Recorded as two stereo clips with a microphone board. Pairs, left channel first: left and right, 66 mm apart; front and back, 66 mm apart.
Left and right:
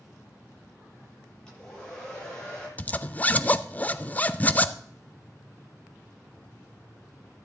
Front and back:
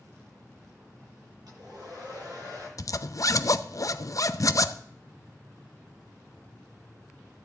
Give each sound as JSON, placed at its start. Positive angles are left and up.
{"t": 1.5, "sound": "a hair dryer", "azimuth_deg": 165, "distance_m": 9.0}
{"t": 2.8, "sound": "a zipper", "azimuth_deg": 25, "distance_m": 0.5}